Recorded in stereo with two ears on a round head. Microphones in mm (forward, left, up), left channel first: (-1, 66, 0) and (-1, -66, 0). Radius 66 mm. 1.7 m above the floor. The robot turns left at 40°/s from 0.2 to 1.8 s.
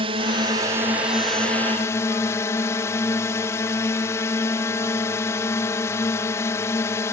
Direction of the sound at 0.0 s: 135° right.